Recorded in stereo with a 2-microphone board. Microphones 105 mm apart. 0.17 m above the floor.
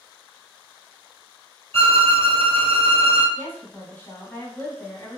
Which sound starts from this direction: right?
A violin, at 1.7 s.